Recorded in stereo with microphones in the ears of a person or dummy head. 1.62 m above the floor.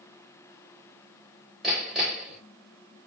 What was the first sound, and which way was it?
Hammering, centre (ahead or behind).